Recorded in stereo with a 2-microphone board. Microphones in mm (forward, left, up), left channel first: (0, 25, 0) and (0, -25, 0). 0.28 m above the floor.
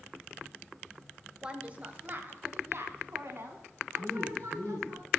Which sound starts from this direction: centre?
A woman speaking, at 1.4 s.